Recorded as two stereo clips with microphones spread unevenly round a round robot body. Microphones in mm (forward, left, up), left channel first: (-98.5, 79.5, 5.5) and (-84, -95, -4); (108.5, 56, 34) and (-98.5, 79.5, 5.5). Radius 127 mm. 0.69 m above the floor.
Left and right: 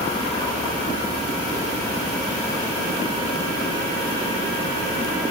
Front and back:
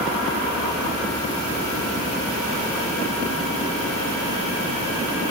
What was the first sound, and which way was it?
Only background noise.